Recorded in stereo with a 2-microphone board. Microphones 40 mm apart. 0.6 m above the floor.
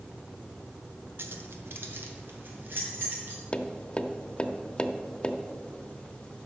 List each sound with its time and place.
1.2 s keys jangling: 70° right (ahead or behind), 1.0 m; by 3.4 s 55° right (ahead or behind), 3 m
3.5 s tapping: 25° left (ahead or behind), 0.7 m